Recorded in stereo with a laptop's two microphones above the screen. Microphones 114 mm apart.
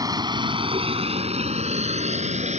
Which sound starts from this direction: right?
A vehicle, at 0.0 s.